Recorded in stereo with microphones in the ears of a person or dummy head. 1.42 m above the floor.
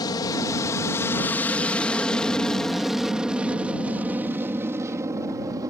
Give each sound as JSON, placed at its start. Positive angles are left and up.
{"t": 0.0, "sound": "an aircraft", "side_deg": 20}